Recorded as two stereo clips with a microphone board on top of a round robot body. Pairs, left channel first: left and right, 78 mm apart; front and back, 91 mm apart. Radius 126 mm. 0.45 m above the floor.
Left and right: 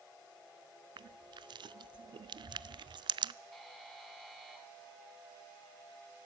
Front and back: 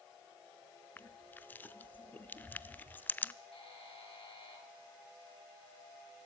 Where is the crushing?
70° right, 0.6 m.